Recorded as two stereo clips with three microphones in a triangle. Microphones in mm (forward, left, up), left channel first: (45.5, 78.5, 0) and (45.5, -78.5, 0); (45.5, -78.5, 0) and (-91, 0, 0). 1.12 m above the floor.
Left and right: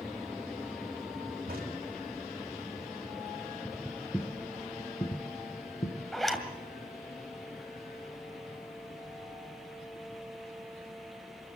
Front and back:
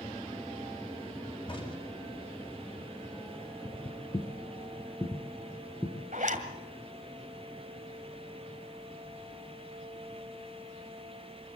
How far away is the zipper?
About 2 m.